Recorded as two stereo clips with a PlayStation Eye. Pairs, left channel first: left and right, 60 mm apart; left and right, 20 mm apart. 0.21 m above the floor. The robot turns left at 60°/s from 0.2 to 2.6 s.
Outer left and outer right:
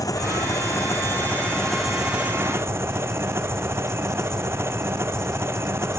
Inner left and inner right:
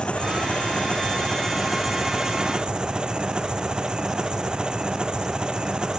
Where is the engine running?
100° left; by 6.0 s 45° right.